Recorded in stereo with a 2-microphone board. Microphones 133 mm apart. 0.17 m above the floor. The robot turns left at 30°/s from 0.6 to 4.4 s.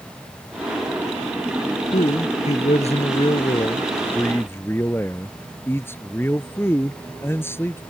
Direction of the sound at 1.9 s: 95° left.